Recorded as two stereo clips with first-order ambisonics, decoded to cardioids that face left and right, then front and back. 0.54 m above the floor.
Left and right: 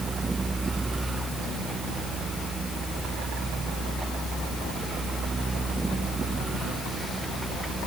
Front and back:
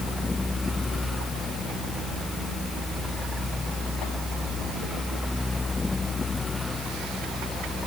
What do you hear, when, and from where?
Only background noise.